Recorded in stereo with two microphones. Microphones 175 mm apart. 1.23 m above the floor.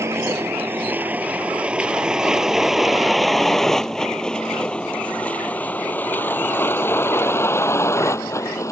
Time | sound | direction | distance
0.0 | a vehicle | 15° right (ahead or behind) | ?